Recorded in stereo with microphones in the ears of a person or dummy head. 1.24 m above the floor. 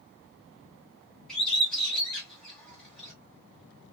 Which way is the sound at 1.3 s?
10° left (ahead or behind).